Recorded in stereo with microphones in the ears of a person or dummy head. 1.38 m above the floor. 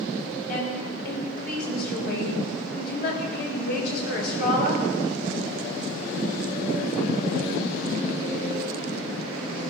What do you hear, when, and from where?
0.5 s a woman speaking: 65° left (ahead or behind), 7.5 m